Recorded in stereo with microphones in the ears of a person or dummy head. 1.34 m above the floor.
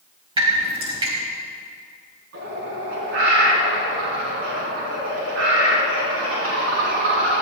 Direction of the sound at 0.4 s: 25° right (ahead or behind).